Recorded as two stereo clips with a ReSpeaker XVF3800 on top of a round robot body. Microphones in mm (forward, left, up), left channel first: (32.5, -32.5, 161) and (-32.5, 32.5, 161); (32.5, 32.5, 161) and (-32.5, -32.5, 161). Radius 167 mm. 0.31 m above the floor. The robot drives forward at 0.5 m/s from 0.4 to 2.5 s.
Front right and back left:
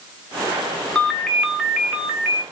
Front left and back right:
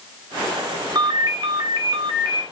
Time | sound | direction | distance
0.9 | a ringtone | 125° right | 1.1 m